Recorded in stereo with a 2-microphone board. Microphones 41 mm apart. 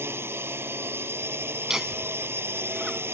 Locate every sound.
0.0 s a drone: 70° right (ahead or behind)
1.7 s laughter: 10° right (ahead or behind)